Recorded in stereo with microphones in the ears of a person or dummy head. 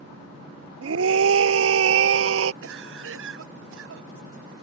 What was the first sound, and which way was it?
A scream, 70° right (ahead or behind).